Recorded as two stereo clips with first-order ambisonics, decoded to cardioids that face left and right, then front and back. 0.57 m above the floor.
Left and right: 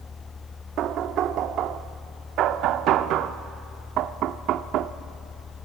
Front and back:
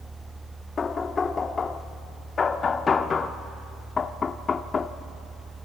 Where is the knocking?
65° right, 0.6 m.